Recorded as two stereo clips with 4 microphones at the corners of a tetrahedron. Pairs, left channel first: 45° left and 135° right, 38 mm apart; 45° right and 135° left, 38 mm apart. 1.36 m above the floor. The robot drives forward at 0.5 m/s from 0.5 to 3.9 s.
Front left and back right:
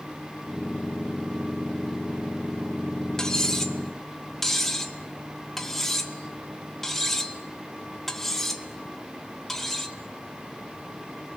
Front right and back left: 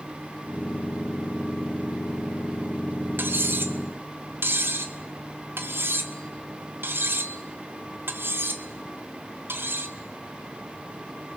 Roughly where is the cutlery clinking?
Behind left.